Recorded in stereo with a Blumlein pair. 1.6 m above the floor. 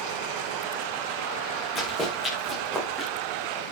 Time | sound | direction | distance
1.8 | running footsteps | 10° left | 7 m